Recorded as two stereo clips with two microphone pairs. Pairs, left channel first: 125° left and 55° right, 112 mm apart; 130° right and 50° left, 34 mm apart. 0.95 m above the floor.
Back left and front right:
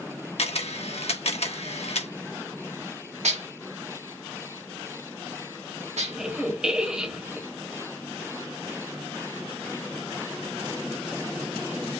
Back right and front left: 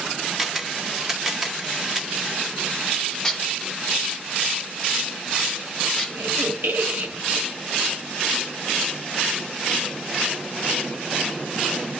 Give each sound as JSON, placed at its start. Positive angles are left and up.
{"t": 0.4, "sound": "a camera shutter", "azimuth_deg": 130, "distance_m": 1.5}
{"t": 3.2, "sound": "dishes clattering", "azimuth_deg": -50, "distance_m": 1.8}
{"t": 6.1, "sound": "a squeak", "azimuth_deg": 30, "distance_m": 1.6}